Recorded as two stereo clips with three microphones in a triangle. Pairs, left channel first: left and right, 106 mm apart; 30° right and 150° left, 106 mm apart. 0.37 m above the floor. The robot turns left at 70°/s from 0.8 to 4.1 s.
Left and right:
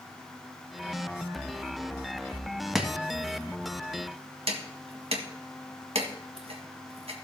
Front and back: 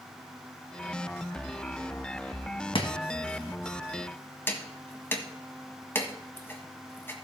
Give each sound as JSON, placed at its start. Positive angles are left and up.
{"t": 2.8, "sound": "chopping", "azimuth_deg": -5, "distance_m": 1.6}